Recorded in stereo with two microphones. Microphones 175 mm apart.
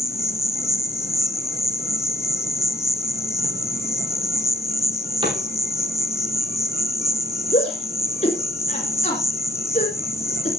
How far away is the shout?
About 2 m.